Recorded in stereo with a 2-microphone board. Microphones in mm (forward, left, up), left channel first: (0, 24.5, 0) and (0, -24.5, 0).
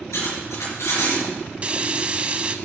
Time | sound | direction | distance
0.1 | cutlery clinking | 80° left | 5.5 m
1.6 | frying | 25° right (ahead or behind) | 0.8 m